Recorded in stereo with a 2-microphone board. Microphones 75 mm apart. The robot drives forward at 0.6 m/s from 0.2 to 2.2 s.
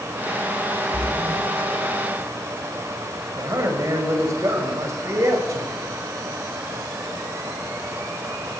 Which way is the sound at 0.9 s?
10° right (ahead or behind).